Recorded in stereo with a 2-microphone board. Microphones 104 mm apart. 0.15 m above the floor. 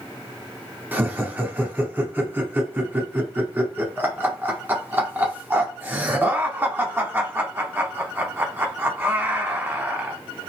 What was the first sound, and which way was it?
Laughter, 20° right (ahead or behind).